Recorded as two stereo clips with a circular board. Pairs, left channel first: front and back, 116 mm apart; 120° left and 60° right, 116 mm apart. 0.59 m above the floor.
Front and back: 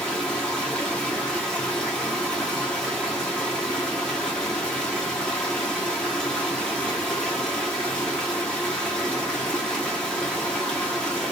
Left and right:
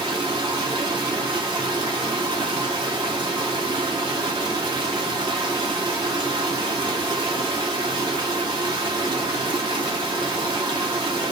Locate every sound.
0.0 s running water: 80° right, 0.8 m